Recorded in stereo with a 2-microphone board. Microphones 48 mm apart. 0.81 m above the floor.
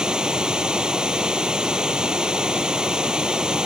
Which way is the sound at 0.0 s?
15° right (ahead or behind).